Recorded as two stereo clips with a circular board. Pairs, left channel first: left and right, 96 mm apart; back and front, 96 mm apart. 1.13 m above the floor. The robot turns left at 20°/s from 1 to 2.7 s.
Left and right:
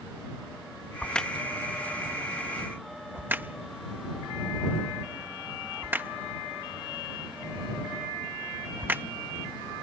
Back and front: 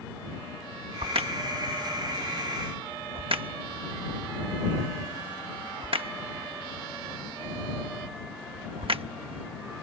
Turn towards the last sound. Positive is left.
turn(degrees=-20)